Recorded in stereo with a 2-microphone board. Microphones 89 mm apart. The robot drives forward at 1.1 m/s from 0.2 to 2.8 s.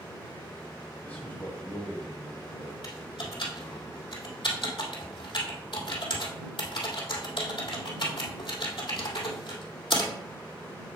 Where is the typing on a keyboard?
65° left (ahead or behind), 2 m.